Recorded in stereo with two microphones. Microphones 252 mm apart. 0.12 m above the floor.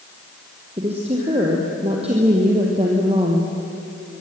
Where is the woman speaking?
25° right (ahead or behind), 3.5 m.